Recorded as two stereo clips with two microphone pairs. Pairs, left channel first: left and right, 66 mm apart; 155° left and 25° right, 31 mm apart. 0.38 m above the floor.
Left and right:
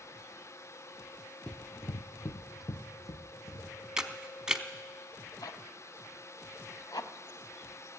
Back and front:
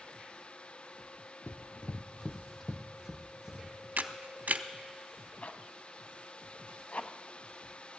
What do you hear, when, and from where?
1.5 s running footsteps: 165° left, 0.7 m; by 3.7 s 45° left, 1.8 m
4.0 s a camera shutter: 15° right, 0.6 m
5.4 s a zipper: 115° left, 0.6 m